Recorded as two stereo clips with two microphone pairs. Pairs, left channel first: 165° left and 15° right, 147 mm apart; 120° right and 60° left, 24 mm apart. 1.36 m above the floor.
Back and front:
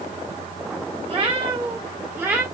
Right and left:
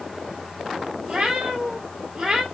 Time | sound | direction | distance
1.1 | a cat meowing | 20° left | 1.4 m